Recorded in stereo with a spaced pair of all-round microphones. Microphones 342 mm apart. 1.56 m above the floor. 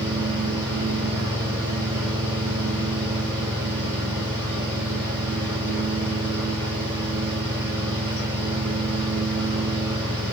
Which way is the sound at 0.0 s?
60° right (ahead or behind).